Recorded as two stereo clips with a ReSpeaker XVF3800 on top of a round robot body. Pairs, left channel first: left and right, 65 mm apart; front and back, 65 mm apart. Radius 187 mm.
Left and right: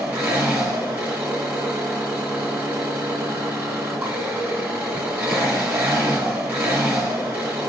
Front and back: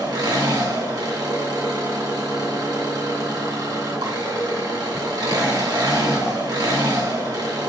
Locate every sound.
0.0 s an engine running: 160° right, 2.5 m